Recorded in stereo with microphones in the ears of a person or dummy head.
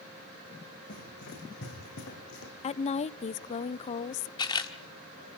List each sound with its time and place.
0.9 s running footsteps: 65° left (ahead or behind), 6.5 m; by 2.5 s 70° left (ahead or behind), 5.5 m
2.6 s a woman speaking: 35° left (ahead or behind), 0.5 m
4.4 s a camera shutter: 20° left (ahead or behind), 1.5 m